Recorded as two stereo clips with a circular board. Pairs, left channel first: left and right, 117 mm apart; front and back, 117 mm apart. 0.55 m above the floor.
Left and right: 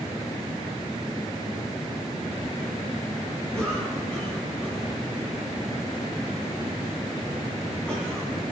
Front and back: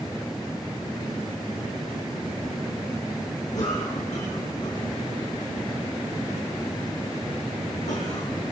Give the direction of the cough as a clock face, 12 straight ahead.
12 o'clock.